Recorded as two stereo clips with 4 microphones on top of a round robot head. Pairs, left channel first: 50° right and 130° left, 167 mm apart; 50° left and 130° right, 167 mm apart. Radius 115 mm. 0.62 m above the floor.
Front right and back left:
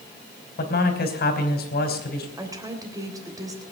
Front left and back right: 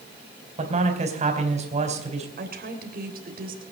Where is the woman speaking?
160° right, 3.5 m.